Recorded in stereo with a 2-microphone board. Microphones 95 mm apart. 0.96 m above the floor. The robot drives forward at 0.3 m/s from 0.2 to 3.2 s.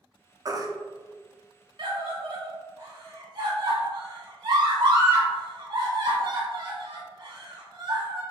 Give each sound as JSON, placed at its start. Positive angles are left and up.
{"t": 0.5, "sound": "a baby crying", "side_deg": -35, "distance_m": 0.6}
{"t": 1.8, "sound": "a scream", "side_deg": -50, "distance_m": 1.7}